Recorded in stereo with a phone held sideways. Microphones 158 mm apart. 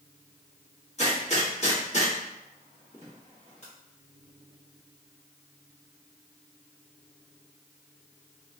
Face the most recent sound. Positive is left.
turn(degrees=45)  # may be behind; listen again after turning